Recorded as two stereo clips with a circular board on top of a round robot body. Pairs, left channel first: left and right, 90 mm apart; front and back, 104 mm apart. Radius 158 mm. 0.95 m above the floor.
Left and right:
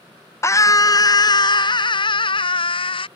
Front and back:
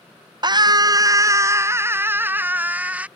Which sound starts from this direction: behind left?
A scream, at 0.4 s.